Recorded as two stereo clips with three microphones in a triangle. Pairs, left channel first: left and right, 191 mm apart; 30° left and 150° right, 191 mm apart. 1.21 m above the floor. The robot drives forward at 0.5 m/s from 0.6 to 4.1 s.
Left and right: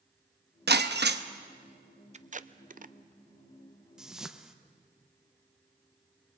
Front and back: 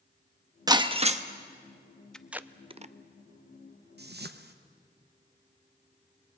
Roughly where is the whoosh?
Behind.